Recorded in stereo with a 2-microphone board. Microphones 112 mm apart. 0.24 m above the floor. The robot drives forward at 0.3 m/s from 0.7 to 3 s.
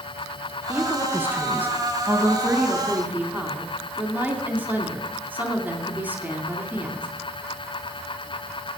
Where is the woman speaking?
15° right (ahead or behind), 2 m.